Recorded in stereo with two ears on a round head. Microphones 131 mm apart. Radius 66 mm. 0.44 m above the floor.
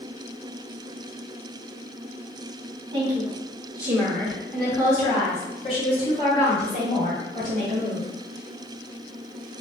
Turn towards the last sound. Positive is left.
turn(degrees=60)  # may be behind; listen again after turning